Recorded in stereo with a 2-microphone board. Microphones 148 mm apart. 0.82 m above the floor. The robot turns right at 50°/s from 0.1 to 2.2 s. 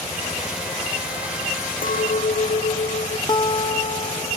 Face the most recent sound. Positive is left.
turn(degrees=30)  # may be behind; listen again after turning